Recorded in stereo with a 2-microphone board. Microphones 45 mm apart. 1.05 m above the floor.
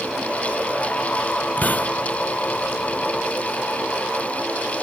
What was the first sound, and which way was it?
A hiss, 40° left (ahead or behind).